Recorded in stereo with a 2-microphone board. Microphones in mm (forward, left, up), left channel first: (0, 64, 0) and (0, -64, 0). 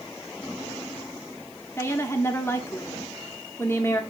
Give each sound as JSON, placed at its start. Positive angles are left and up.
{"t": 1.8, "sound": "a woman speaking", "side_deg": 20, "distance_m": 1.0}